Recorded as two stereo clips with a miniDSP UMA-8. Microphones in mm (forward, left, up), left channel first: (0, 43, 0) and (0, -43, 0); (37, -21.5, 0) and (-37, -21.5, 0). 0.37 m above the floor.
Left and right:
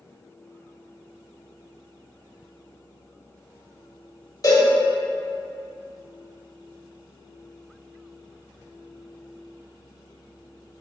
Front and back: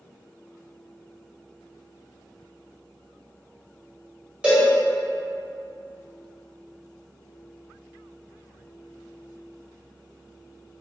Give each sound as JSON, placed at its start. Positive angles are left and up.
{"t": 4.4, "sound": "a cowbell", "azimuth_deg": 110, "distance_m": 1.5}